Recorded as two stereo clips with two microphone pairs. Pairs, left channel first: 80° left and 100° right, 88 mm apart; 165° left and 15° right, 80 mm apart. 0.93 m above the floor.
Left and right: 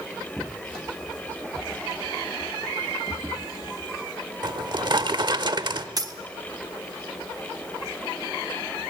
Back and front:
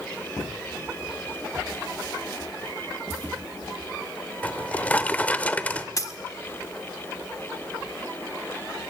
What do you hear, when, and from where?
4.4 s a drawer: 125° right, 0.9 m
6.0 s a dropped coin: 145° right, 1.2 m